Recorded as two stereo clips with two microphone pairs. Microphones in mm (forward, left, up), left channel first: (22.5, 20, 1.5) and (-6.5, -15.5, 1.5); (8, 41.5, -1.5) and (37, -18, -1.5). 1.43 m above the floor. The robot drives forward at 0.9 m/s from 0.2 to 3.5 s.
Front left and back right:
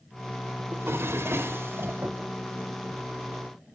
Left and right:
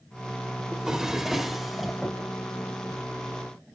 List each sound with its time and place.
0.7 s a drawer: 140° right, 2.5 m; by 2.2 s 155° right, 3.5 m